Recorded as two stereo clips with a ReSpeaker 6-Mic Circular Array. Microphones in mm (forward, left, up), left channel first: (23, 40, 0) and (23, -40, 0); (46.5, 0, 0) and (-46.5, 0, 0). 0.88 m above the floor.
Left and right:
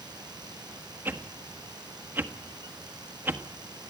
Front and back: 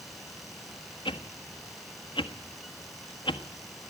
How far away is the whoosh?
About 1.5 m.